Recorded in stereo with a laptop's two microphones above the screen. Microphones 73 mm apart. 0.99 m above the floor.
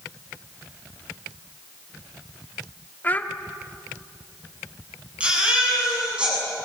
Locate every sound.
3.0 s a child speaking: 25° left (ahead or behind), 1.3 m
5.2 s a baby crying: 15° right (ahead or behind), 8 m